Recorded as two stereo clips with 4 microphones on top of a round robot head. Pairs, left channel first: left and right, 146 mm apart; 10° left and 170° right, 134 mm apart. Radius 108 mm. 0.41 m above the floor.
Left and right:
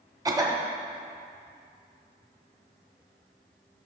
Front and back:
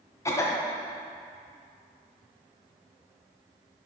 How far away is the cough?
About 1.2 m.